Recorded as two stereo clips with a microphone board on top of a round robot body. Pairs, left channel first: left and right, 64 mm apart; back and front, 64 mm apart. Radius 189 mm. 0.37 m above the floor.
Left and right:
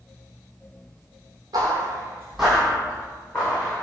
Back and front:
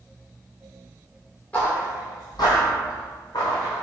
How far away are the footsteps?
About 0.8 m.